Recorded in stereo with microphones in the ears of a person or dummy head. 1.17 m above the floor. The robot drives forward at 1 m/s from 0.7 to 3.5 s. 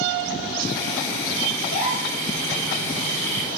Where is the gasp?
75° left (ahead or behind), 2.5 m; by 2.1 s 60° left (ahead or behind), 2.5 m.